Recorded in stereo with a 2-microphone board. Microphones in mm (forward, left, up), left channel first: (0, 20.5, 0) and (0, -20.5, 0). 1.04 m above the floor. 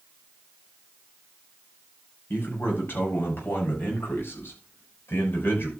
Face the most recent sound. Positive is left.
turn(degrees=60)  # may be behind; listen again after turning